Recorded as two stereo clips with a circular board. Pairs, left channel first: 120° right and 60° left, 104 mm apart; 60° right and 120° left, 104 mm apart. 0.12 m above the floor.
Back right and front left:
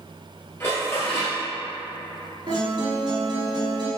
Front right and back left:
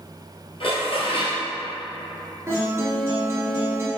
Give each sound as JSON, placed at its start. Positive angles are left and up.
{"t": 0.6, "sound": "dishes clattering", "azimuth_deg": -60, "distance_m": 1.5}
{"t": 2.5, "sound": "a guitar", "azimuth_deg": 65, "distance_m": 1.4}